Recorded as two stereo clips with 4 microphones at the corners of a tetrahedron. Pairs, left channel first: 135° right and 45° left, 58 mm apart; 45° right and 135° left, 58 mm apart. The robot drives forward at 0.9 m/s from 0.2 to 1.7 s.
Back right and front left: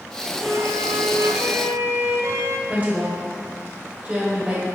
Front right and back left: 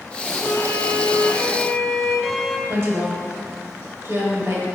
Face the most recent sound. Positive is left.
turn(degrees=105)